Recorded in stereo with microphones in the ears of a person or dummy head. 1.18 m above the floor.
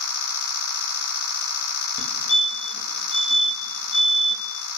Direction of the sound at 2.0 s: 65° left (ahead or behind).